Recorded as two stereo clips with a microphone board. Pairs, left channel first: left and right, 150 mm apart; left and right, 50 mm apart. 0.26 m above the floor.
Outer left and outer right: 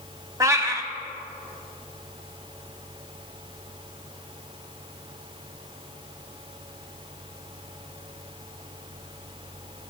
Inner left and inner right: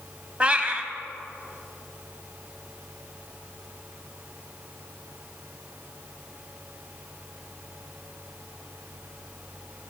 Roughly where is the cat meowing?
Right.